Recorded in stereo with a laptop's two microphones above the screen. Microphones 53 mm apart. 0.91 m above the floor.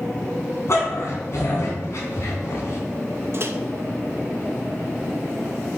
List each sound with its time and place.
0.7 s a dog barking: 55° left (ahead or behind), 2.5 m
3.3 s a microwave: 50° right (ahead or behind), 0.6 m